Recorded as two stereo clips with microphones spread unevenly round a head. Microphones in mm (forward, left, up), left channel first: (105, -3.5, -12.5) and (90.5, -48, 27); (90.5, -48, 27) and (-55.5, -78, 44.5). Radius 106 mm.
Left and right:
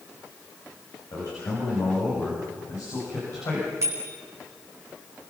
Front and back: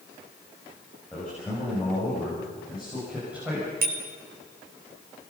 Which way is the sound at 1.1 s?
95° left.